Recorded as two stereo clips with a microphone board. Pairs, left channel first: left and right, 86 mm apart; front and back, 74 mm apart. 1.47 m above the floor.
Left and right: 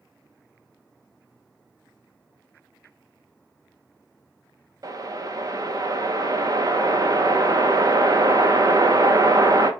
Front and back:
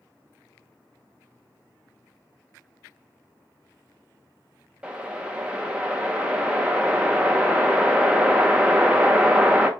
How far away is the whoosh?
About 0.8 m.